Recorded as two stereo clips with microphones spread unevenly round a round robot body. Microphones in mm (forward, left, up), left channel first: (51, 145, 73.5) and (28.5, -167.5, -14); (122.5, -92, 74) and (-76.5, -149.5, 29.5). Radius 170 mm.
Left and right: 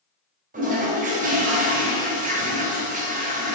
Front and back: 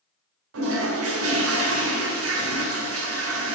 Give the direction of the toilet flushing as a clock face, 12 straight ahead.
5 o'clock.